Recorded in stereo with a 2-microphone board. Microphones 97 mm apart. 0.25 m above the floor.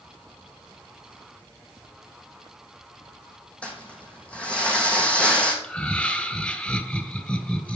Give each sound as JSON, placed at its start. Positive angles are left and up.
{"t": 3.6, "sound": "crumpling", "side_deg": 10, "distance_m": 4.5}
{"t": 5.6, "sound": "laughter", "side_deg": 15, "distance_m": 1.3}